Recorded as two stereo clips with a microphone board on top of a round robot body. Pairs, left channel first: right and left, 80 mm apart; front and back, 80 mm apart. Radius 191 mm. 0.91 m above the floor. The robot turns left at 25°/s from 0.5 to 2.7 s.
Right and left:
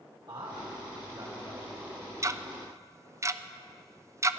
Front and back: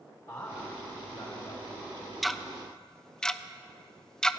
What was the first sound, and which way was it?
A man speaking, 50° left.